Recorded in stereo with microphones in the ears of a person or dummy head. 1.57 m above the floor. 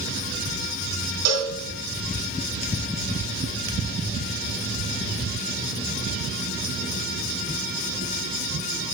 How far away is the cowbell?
About 3 m.